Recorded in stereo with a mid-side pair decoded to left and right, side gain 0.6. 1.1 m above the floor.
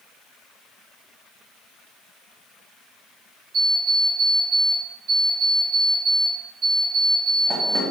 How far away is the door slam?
I don't hear a door slam.